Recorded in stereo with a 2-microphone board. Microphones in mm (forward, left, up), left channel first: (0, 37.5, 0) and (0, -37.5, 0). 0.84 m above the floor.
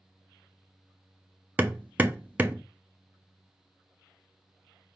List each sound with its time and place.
1.6 s hammering: 20° right (ahead or behind), 0.5 m